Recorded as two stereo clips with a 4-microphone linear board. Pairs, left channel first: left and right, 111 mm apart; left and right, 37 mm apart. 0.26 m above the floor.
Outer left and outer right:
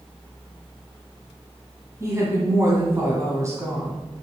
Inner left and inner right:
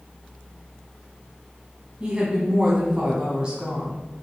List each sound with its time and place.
2.0 s a woman speaking: 30° right (ahead or behind), 1.9 m